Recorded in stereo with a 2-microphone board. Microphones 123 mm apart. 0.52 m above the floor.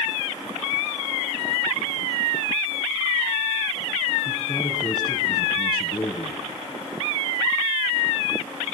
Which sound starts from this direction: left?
A man speaking, at 4.2 s.